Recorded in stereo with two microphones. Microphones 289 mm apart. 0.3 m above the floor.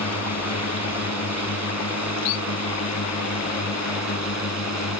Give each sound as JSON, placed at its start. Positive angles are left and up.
{"t": 0.0, "sound": "a drone", "side_deg": 60}